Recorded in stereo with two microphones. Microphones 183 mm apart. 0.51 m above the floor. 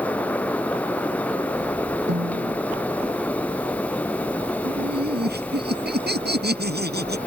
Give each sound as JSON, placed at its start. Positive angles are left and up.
{"t": 2.1, "sound": "a snare drum", "side_deg": -80}
{"t": 4.7, "sound": "laughter", "side_deg": -65}